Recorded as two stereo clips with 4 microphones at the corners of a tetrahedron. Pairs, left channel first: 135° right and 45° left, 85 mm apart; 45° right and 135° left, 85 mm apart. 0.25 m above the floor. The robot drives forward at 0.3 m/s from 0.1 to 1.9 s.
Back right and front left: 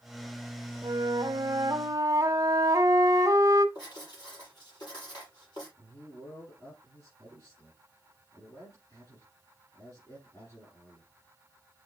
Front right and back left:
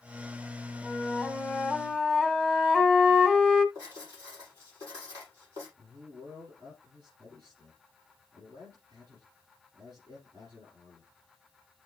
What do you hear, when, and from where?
0.8 s a flute: 35° left, 0.9 m; by 3.6 s 55° left, 0.7 m
3.8 s writing: 170° right, 7.5 m
5.8 s a man speaking: 175° left, 6.5 m